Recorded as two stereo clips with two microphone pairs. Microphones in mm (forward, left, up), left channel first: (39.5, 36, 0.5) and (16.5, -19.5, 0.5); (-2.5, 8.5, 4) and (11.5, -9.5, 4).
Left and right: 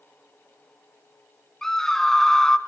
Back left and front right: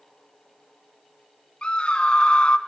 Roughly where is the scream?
Behind left.